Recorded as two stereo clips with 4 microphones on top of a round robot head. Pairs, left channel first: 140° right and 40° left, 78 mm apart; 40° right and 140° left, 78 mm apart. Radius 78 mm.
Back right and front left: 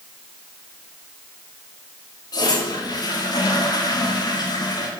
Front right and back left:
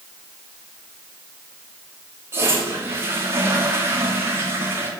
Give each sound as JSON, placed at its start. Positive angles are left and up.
{"t": 2.3, "sound": "a toilet flushing", "azimuth_deg": -165, "distance_m": 1.8}